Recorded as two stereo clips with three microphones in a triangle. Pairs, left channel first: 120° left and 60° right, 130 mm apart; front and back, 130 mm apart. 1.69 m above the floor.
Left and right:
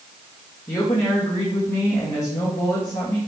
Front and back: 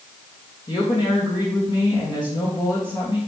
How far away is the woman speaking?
About 2.0 m.